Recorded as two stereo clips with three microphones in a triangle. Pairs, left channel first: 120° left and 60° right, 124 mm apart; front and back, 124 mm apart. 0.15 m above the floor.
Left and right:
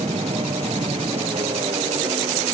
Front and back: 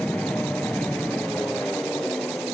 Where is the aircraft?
80° right.